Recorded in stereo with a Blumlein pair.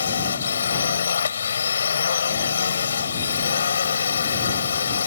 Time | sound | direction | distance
0.0 | a drone | 70° left | ?